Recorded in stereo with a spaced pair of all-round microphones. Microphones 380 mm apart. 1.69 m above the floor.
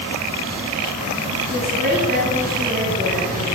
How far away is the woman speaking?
About 10 m.